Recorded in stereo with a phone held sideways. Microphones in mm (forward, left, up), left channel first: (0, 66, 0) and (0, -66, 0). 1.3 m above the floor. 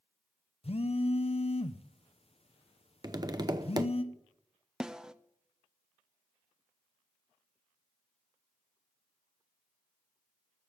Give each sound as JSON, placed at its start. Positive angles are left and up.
{"t": 0.6, "sound": "a phone buzzing", "side_deg": 50, "distance_m": 0.7}
{"t": 3.0, "sound": "tapping", "side_deg": -30, "distance_m": 0.7}
{"t": 4.8, "sound": "a snare drum", "side_deg": -5, "distance_m": 0.5}